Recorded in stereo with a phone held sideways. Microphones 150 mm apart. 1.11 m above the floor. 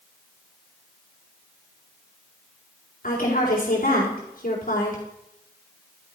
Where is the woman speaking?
75° left (ahead or behind), 4 m.